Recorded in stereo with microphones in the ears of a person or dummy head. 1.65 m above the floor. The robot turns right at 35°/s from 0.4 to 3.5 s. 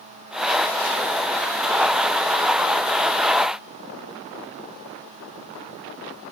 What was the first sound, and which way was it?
Only background noise.